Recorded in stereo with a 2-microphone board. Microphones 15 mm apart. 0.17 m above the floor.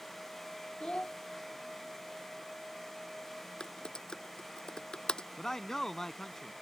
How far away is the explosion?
I don't hear an explosion.